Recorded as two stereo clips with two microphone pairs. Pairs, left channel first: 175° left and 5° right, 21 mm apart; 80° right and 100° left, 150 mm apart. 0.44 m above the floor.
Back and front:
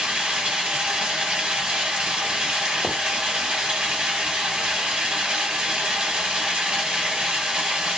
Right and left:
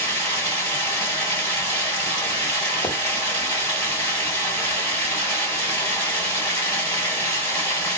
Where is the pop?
95° right, 1.4 m.